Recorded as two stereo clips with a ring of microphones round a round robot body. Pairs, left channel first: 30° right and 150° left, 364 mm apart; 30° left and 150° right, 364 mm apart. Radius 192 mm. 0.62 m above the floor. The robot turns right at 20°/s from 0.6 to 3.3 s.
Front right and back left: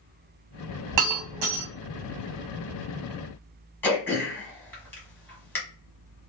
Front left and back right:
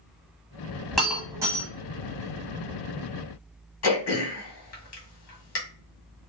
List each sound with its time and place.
0.9 s breaking glass: 120° left, 1.2 m; by 1.7 s 135° left, 1.2 m
3.8 s throat clearing: 50° left, 1.3 m